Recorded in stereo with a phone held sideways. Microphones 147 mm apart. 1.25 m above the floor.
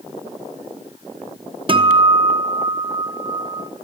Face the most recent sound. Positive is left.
turn(degrees=-40)  # may be behind; listen again after turning